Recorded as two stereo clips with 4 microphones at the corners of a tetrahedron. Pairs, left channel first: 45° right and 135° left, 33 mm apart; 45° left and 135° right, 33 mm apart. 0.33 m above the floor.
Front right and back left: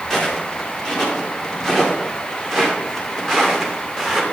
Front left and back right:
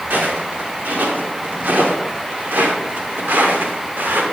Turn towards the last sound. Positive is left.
turn(degrees=-135)